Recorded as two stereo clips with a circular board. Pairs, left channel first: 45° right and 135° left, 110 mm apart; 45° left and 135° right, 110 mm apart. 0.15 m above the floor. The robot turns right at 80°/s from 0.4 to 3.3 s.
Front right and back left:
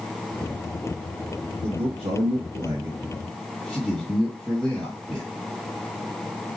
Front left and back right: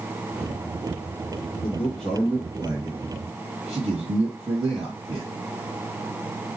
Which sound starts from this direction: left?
A man speaking, at 1.6 s.